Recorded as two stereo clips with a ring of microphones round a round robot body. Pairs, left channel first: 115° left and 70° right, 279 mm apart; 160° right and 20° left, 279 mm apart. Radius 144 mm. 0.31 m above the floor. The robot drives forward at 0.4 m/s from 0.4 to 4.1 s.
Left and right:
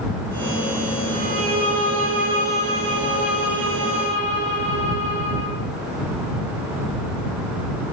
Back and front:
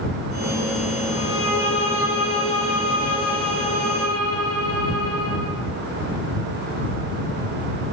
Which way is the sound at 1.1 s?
110° right.